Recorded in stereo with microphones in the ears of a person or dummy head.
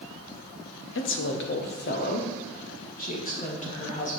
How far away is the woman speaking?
About 0.8 m.